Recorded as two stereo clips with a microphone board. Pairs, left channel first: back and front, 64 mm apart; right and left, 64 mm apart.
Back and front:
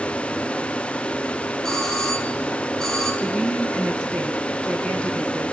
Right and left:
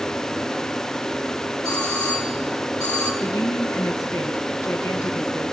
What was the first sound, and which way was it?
A doorbell, 100° right.